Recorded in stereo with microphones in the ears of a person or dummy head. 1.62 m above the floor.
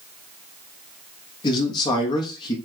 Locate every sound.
1.4 s a man speaking: 25° left (ahead or behind), 0.9 m